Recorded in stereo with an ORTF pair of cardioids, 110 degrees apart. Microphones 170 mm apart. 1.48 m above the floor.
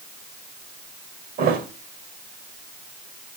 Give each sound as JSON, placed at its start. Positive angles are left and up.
{"t": 1.4, "sound": "a thud", "azimuth_deg": -70, "distance_m": 3.0}